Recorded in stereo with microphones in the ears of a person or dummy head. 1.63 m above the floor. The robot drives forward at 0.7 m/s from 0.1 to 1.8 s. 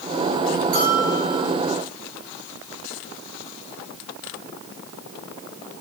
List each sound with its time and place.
0.7 s a bell: 45° right (ahead or behind), 6.5 m; by 1.5 s 40° right (ahead or behind), 7 m